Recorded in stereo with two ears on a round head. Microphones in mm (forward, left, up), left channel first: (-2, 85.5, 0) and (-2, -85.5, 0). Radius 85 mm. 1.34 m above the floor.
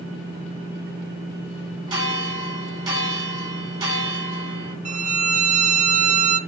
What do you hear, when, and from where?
1.9 s a bell: 25° right (ahead or behind), 3.5 m
4.8 s a violin: 40° right (ahead or behind), 0.6 m